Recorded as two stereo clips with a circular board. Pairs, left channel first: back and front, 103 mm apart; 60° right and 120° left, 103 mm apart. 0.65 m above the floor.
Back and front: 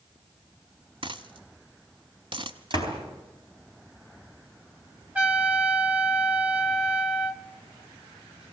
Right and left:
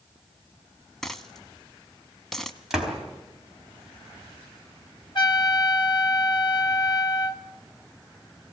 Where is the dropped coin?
30° left, 1.0 m.